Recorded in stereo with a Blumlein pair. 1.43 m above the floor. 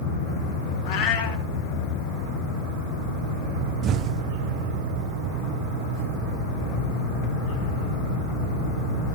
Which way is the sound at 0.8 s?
30° left.